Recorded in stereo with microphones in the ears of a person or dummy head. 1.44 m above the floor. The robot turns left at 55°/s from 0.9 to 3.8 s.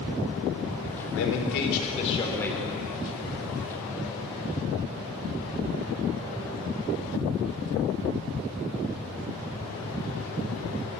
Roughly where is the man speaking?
Left.